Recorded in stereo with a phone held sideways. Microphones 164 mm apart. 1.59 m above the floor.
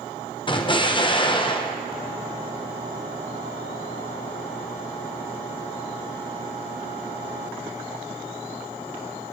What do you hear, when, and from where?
0.5 s an explosion: 30° left (ahead or behind), 0.8 m